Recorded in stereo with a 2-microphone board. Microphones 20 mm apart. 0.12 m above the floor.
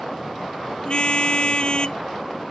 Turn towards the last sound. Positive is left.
turn(degrees=50)  # may be behind; listen again after turning